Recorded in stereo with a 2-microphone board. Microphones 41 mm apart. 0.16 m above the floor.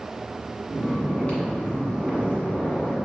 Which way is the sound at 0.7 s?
30° left (ahead or behind).